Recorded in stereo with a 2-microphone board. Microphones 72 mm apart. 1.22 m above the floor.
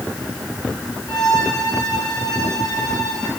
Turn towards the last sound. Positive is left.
turn(degrees=75)  # may be behind; listen again after turning